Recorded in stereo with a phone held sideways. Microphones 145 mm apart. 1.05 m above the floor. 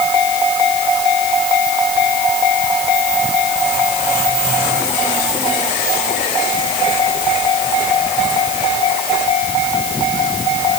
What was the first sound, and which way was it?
Only background noise.